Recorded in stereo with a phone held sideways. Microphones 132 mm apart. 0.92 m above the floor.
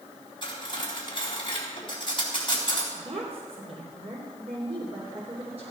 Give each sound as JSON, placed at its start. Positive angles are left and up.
{"t": 0.4, "sound": "cutlery clinking", "side_deg": 40, "distance_m": 3.5}
{"t": 3.0, "sound": "a woman speaking", "side_deg": -50, "distance_m": 3.0}